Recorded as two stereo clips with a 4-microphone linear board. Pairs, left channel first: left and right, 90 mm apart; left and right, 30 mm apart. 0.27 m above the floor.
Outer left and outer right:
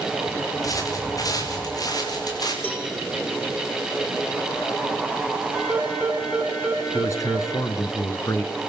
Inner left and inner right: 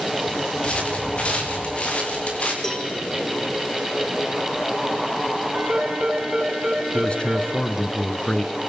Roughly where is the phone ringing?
Centre.